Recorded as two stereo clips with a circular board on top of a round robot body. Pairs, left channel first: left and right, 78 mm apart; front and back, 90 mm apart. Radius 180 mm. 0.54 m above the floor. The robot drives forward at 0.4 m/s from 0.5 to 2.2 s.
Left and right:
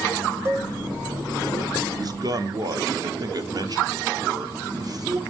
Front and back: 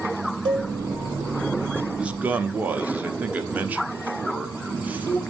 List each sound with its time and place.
0.5 s a cowbell: 145° right, 0.9 m; by 0.7 s 150° right, 1.0 m
2.0 s a man speaking: 100° right, 0.9 m; by 5.2 s 110° right, 0.9 m